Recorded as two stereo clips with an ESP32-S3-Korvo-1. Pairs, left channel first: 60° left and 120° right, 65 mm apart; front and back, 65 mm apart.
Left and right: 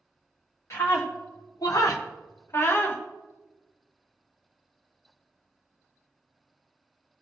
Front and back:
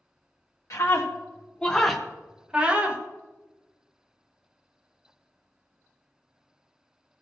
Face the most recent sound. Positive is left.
turn(degrees=115)